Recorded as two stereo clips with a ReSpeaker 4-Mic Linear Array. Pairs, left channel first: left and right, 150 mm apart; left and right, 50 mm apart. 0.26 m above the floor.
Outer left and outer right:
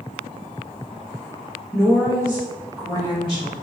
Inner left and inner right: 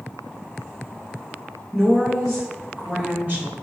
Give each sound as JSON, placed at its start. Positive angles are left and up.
{"t": 1.7, "sound": "a woman speaking", "side_deg": 20, "distance_m": 1.6}